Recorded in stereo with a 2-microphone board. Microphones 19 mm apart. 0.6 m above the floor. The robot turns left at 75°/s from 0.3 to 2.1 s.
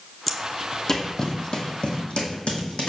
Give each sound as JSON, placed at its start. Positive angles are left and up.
{"t": 0.3, "sound": "footsteps", "side_deg": -5, "distance_m": 0.8}